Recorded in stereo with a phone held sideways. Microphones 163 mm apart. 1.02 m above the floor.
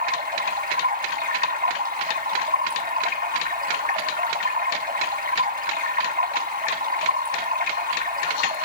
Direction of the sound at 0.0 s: 60° right (ahead or behind).